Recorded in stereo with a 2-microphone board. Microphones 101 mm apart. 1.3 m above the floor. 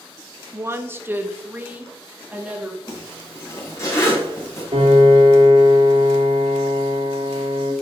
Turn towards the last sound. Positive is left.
turn(degrees=-80)